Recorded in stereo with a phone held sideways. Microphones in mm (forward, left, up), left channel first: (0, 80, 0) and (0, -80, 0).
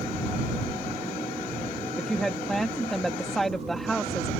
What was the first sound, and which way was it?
A woman speaking, centre (ahead or behind).